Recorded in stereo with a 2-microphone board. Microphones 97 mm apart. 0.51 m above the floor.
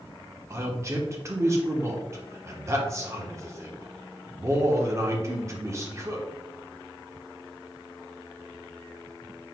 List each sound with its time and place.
0.5 s a man speaking: 30° right (ahead or behind), 1.0 m